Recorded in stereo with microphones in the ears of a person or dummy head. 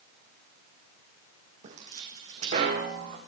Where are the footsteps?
40° right (ahead or behind), 3 m; by 3.2 s 50° right (ahead or behind), 4.5 m.